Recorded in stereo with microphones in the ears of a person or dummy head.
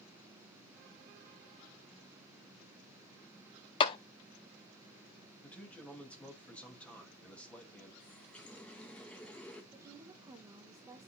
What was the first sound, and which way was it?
A clap, 25° left (ahead or behind).